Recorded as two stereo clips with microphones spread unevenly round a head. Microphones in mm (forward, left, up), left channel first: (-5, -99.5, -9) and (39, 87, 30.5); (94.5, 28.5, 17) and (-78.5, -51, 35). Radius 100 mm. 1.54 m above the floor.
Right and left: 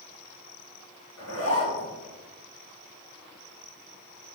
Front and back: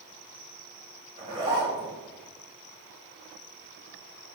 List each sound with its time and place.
1.2 s a zipper: 95° right, 3.5 m